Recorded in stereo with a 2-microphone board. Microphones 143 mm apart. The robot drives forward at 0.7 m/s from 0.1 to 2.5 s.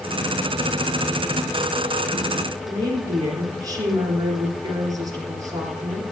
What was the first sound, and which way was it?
A woman speaking, 25° right (ahead or behind).